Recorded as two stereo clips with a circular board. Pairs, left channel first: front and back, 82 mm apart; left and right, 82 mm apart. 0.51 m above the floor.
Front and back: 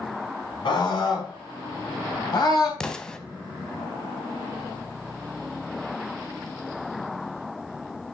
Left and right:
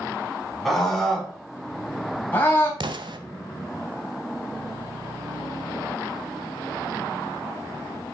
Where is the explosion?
80° right, 0.8 m.